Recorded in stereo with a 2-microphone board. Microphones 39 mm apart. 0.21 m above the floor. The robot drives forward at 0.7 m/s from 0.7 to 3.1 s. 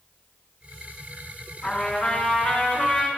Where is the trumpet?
15° left (ahead or behind), 2.5 m; by 3.1 s 10° left (ahead or behind), 3 m.